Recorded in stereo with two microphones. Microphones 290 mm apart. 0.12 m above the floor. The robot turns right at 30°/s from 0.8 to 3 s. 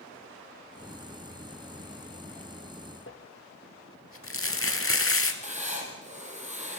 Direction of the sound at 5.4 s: 25° right (ahead or behind).